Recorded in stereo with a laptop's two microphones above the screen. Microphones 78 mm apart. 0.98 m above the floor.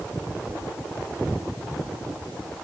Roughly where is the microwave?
No microwave in this recording.